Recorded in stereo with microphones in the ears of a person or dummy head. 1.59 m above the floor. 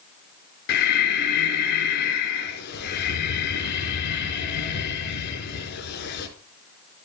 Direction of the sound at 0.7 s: 60° left (ahead or behind).